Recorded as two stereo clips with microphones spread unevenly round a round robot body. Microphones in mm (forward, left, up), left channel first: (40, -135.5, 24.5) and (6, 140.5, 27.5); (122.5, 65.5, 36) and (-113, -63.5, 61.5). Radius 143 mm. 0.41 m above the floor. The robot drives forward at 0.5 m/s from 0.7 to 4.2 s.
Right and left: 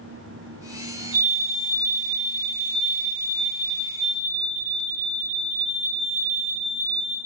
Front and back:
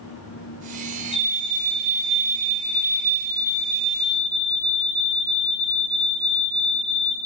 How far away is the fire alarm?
About 5 m.